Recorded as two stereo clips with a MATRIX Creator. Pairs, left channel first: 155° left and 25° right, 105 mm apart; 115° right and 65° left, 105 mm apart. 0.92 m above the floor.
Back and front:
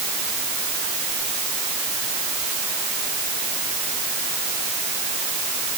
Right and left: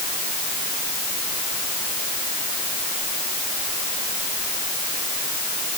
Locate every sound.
Only background noise.